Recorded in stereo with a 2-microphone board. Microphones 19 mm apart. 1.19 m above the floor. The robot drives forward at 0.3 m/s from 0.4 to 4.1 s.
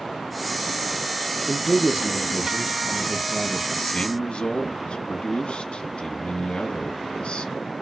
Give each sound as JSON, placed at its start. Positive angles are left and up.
{"t": 1.5, "sound": "a man speaking", "side_deg": -70, "distance_m": 1.0}
{"t": 3.8, "sound": "a man speaking", "side_deg": 75, "distance_m": 1.2}